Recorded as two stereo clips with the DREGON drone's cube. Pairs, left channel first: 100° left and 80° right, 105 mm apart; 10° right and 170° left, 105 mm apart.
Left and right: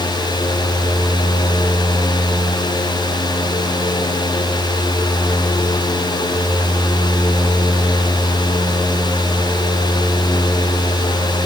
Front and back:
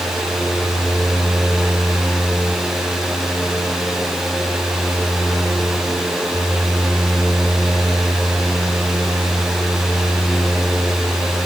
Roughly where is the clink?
I don't hear a clink.